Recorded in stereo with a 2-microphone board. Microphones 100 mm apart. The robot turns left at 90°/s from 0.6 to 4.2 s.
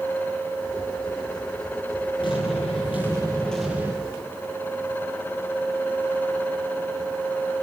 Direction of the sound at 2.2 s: 125° left.